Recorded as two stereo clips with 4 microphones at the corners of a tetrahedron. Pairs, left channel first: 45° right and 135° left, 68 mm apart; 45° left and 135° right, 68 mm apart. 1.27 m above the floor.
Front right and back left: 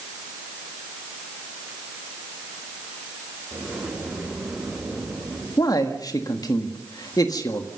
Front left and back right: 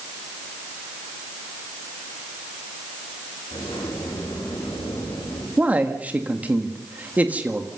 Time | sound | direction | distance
3.5 | a sliding door | 55° left | 6 m
5.6 | a man speaking | 65° right | 1.6 m